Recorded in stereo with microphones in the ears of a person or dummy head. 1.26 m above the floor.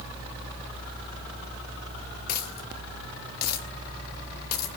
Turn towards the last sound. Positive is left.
turn(degrees=55)  # may be behind; listen again after turning